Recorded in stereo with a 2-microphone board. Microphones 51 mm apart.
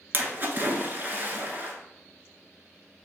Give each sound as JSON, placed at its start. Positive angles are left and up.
{"t": 0.1, "sound": "a splash", "side_deg": -40, "distance_m": 1.1}